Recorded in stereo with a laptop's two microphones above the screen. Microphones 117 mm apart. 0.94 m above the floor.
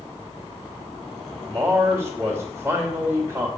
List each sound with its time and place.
1.4 s a man speaking: 10° right (ahead or behind), 2.5 m